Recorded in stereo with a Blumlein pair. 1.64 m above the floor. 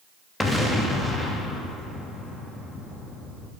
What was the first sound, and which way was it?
An explosion, 5° left.